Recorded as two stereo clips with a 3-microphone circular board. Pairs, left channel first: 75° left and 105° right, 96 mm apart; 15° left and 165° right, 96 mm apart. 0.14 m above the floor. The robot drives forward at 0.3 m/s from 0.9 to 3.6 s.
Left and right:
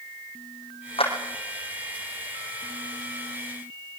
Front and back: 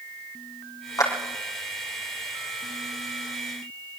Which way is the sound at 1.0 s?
65° left.